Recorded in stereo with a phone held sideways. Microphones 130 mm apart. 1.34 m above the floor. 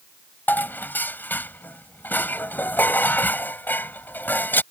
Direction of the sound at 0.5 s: 15° left (ahead or behind).